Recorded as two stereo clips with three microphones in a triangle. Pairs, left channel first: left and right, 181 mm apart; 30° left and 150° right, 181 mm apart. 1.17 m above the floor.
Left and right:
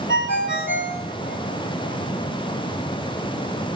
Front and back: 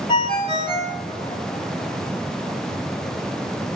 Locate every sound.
0.1 s a ringtone: 90° left, 4 m